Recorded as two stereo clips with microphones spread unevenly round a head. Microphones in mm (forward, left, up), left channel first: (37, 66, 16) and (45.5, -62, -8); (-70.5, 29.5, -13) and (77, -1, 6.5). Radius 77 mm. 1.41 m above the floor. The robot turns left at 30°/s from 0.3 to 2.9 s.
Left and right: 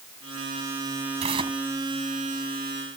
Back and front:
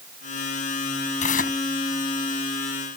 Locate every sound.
1.2 s tearing paper: 145° right; by 1.6 s 155° right